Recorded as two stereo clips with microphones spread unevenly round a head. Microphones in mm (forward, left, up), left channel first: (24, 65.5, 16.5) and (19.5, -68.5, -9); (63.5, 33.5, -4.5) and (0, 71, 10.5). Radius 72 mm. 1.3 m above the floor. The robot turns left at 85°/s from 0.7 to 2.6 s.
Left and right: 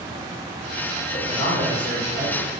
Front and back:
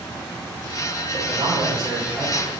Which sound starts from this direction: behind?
A man speaking, at 1.1 s.